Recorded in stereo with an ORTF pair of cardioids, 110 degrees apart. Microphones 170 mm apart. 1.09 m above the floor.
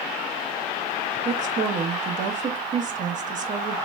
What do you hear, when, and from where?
1.2 s a woman speaking: 45° right, 0.8 m